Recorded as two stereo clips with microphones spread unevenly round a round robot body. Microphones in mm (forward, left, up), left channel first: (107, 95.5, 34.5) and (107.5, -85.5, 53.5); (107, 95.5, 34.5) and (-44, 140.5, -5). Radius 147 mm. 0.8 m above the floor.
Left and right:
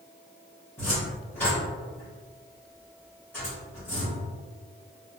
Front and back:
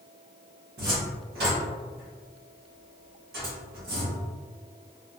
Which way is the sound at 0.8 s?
175° left.